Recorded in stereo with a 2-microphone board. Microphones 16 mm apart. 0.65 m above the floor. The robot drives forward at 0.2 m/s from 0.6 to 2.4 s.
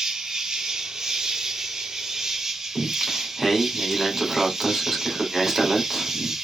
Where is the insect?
60° right (ahead or behind), 0.8 m; by 6.5 s 45° right (ahead or behind), 1.0 m.